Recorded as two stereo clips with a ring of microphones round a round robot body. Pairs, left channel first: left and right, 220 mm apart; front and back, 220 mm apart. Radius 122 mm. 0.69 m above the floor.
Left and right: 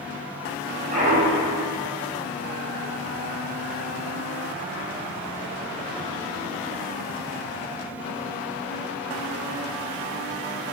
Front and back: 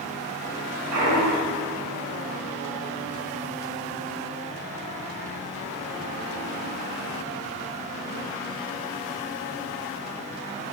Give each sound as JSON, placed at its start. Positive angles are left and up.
{"t": 0.9, "sound": "a clunk", "azimuth_deg": -155, "distance_m": 5.5}